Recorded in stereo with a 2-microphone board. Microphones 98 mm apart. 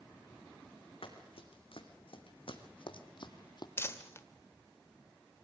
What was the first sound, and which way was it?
Running footsteps, 80° left.